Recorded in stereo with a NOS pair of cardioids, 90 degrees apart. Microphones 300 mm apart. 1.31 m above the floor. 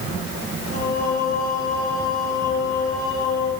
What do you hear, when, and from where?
0.7 s singing: 50° left, 6.5 m